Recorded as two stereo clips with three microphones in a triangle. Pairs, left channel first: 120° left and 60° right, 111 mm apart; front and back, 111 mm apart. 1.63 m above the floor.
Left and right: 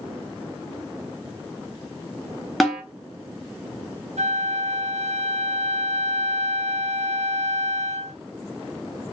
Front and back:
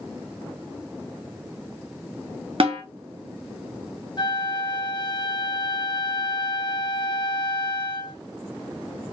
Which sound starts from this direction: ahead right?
A flute, at 4.2 s.